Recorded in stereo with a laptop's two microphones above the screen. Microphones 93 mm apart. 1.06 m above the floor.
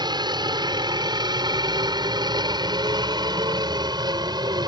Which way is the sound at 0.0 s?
50° right (ahead or behind).